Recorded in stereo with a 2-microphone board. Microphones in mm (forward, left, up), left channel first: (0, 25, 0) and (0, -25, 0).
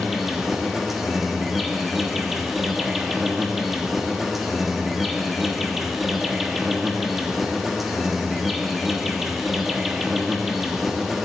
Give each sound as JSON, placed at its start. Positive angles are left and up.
{"t": 0.0, "sound": "an insect", "side_deg": -5, "distance_m": 1.1}